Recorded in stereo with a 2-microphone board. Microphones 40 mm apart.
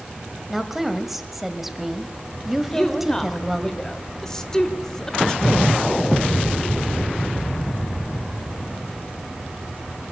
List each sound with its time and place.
0.5 s a woman speaking: 5° right (ahead or behind), 1.6 m
2.7 s a woman speaking: 15° left (ahead or behind), 1.1 m